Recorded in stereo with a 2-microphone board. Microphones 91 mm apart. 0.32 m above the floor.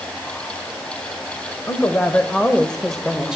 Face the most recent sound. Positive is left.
turn(degrees=-10)  # may be behind; listen again after turning